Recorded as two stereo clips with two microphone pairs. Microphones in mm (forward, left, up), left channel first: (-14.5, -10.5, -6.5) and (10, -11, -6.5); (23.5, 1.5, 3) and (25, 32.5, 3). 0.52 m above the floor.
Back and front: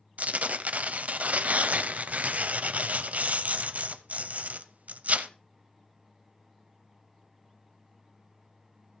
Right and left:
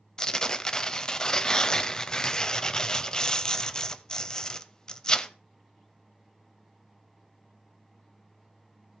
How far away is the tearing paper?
About 0.7 m.